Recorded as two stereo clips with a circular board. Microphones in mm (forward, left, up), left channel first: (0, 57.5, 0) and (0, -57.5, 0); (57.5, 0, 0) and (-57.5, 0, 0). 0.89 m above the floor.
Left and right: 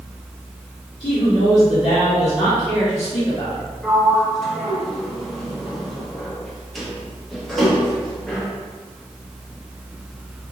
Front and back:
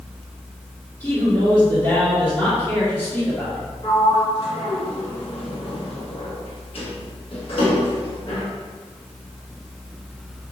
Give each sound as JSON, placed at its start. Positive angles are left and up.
{"t": 1.0, "sound": "a man speaking", "azimuth_deg": 65, "distance_m": 1.7}
{"t": 3.8, "sound": "a sliding door", "azimuth_deg": 5, "distance_m": 1.0}